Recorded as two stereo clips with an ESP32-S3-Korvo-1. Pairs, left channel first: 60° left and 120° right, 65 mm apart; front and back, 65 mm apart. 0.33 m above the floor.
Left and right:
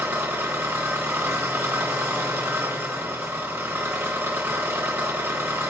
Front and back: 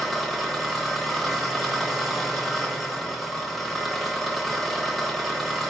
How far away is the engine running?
About 0.8 m.